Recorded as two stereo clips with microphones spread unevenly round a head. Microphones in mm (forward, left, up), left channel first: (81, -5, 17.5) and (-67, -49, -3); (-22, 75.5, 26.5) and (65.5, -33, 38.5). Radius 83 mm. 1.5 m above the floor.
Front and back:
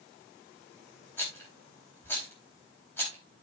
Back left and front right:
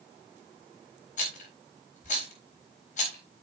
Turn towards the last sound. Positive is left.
turn(degrees=90)